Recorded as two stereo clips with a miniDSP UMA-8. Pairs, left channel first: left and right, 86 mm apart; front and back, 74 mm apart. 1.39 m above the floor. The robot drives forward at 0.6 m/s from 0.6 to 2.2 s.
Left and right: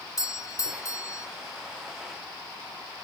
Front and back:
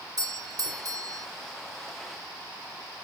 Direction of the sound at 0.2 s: 140° left.